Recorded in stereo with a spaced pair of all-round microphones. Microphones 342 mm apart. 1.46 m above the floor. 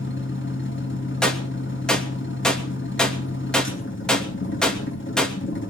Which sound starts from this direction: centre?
A gunshot, at 1.2 s.